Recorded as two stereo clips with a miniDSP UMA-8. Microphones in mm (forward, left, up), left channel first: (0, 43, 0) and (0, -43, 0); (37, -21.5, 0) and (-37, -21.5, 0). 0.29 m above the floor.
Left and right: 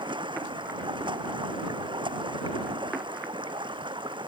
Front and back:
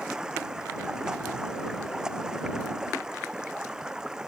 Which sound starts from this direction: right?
Running water, at 0.0 s.